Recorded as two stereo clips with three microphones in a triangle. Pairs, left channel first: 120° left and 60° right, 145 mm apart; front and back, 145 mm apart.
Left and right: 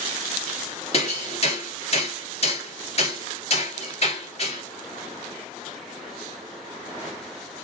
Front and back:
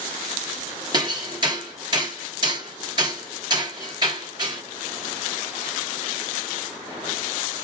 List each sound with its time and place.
0.9 s hammering: 135° left, 1.7 m